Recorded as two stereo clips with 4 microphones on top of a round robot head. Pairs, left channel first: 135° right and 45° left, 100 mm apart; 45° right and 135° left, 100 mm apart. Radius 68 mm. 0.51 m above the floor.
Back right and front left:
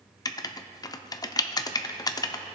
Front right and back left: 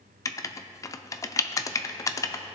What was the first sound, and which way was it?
Writing, 95° right.